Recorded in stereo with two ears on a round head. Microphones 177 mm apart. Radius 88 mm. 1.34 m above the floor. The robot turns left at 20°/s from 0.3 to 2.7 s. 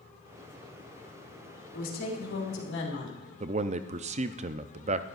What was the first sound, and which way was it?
A woman speaking, 45° left (ahead or behind).